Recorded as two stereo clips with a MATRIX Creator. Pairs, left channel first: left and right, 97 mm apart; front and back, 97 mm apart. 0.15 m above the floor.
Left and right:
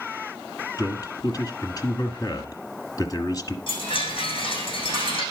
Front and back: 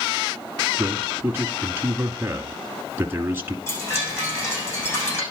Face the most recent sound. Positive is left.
turn(degrees=60)